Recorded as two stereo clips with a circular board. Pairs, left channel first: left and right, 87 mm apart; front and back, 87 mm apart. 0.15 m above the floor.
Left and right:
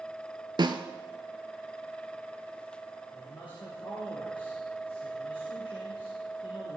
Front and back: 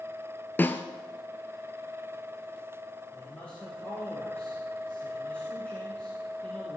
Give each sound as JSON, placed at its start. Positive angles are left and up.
{"t": 0.6, "sound": "a snare drum", "azimuth_deg": -65, "distance_m": 0.8}
{"t": 3.1, "sound": "a man speaking", "azimuth_deg": 75, "distance_m": 4.0}